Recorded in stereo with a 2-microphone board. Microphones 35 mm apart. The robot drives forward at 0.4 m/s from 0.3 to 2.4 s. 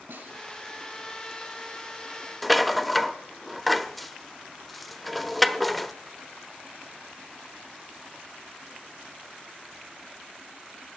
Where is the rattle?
5° left (ahead or behind), 0.5 m.